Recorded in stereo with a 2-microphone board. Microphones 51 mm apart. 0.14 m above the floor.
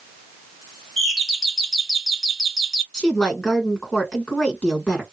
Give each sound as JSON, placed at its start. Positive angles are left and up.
{"t": 1.0, "sound": "a doorbell", "side_deg": 0, "distance_m": 1.6}
{"t": 2.9, "sound": "a woman speaking", "side_deg": 15, "distance_m": 1.3}